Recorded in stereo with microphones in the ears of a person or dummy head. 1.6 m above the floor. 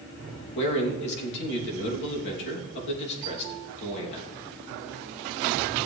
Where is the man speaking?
60° left (ahead or behind), 2.5 m.